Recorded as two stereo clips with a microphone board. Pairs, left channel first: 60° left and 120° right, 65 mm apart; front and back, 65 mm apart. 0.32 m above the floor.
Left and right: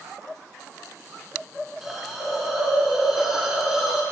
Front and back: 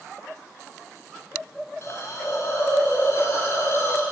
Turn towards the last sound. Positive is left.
turn(degrees=-40)